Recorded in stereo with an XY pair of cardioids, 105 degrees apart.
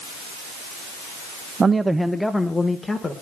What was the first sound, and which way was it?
A man speaking, 35° right.